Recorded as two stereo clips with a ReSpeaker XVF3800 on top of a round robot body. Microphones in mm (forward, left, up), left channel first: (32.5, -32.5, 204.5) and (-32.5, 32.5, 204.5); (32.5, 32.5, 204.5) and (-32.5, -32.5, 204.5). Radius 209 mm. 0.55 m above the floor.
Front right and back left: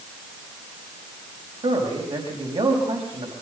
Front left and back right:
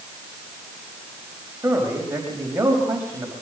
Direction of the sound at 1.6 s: 155° left.